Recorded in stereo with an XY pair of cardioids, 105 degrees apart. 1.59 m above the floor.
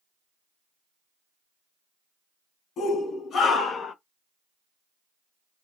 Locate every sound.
2.8 s a shout: 65° left, 1.5 m; by 4.0 s 45° left, 0.7 m